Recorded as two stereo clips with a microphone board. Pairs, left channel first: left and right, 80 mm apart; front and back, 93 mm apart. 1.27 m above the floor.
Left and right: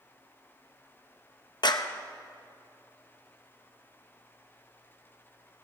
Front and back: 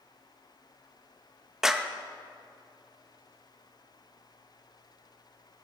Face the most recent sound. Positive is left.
turn(degrees=95)